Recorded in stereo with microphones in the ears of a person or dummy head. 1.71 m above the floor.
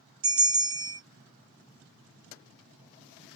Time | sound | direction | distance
0.2 | a bell | 25° right (ahead or behind) | 1.3 m